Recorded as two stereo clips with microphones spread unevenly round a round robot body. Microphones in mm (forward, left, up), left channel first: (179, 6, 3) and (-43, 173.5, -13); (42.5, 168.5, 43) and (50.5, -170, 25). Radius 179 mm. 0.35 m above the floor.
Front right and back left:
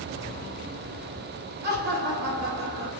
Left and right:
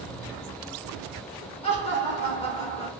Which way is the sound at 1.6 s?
160° left.